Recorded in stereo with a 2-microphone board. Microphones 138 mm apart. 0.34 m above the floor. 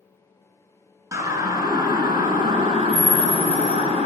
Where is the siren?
25° right (ahead or behind), 5.5 m; by 4.1 s 50° right (ahead or behind), 6 m.